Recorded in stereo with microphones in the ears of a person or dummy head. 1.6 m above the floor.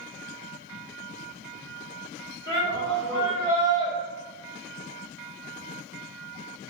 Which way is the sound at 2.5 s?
25° left (ahead or behind).